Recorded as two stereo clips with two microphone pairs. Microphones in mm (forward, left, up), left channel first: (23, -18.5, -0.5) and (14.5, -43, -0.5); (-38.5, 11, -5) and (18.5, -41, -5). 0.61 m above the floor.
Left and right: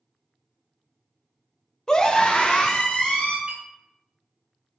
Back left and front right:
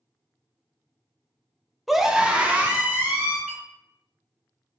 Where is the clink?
115° right, 1.5 m.